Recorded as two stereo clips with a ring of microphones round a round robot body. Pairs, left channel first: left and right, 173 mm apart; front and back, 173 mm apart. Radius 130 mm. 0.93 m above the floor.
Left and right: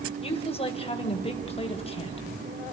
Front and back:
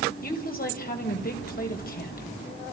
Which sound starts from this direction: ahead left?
A woman speaking, at 0.2 s.